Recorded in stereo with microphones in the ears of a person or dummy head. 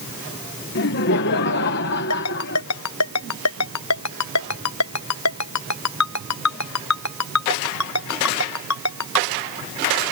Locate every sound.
0.8 s laughter: 55° left (ahead or behind)
2.1 s a ringtone: 90° left